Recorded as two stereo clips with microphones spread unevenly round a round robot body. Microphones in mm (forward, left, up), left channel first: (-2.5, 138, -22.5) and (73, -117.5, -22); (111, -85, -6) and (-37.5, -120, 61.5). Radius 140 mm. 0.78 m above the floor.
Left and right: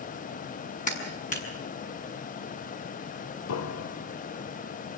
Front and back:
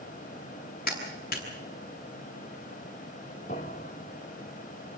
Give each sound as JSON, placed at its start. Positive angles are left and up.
{"t": 0.9, "sound": "a clap", "azimuth_deg": 45, "distance_m": 6.5}
{"t": 3.5, "sound": "a piano", "azimuth_deg": 85, "distance_m": 0.8}